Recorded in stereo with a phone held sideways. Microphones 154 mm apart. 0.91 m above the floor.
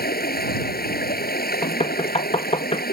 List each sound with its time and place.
0.0 s running water: 85° left
1.6 s knocking: 40° left (ahead or behind)